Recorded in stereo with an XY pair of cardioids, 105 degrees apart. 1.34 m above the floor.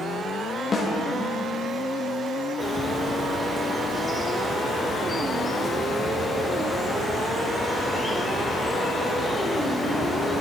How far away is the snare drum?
About 2.0 m.